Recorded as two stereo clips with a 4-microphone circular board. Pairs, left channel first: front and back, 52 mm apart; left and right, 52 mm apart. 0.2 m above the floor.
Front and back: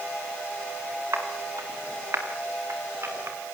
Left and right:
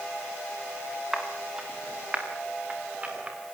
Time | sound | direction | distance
1.1 | footsteps | 165° right | 5 m